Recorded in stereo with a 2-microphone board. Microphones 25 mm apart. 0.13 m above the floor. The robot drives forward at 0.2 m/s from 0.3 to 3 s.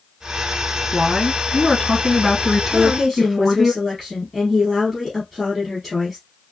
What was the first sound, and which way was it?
A woman speaking, 5° right (ahead or behind).